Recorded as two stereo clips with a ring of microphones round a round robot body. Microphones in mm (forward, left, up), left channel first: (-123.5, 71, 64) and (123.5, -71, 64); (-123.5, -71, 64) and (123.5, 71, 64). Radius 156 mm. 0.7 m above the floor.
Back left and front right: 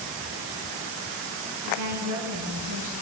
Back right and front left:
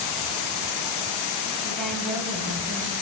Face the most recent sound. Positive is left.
turn(degrees=-55)